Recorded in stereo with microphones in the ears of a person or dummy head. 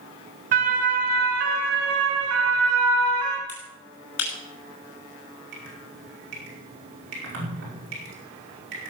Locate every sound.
0.5 s a siren: 55° right (ahead or behind), 2 m; by 3.4 s 75° right (ahead or behind), 2.5 m
3.5 s a finger snap: 85° left, 5.5 m
5.5 s dripping: 65° right (ahead or behind), 5.5 m